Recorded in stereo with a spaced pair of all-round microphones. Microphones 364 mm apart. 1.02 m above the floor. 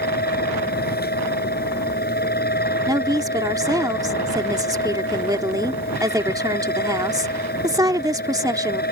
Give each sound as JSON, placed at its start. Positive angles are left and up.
{"t": 0.0, "sound": "a fan", "side_deg": 25}
{"t": 2.9, "sound": "a woman speaking", "side_deg": -10}